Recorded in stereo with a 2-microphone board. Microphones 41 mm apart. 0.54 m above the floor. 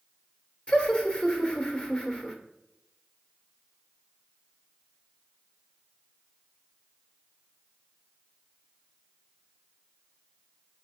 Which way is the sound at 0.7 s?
25° left (ahead or behind).